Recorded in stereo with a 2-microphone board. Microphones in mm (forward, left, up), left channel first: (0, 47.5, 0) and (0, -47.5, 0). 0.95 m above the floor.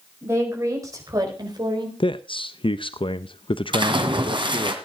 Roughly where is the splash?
Right.